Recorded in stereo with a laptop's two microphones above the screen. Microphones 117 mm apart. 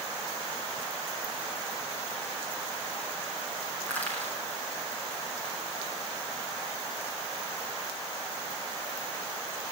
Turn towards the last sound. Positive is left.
turn(degrees=15)  # may be behind; listen again after turning